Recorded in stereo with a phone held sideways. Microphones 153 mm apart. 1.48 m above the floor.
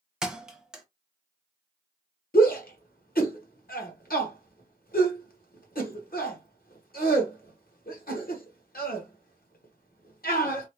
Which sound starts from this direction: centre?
A thud, at 0.2 s.